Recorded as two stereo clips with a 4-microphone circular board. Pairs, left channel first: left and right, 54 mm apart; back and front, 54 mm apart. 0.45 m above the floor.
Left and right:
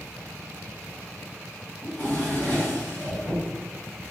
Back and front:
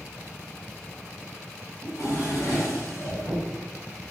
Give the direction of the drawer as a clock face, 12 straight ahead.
7 o'clock.